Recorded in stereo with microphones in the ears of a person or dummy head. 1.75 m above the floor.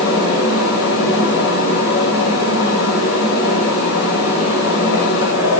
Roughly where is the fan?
Left.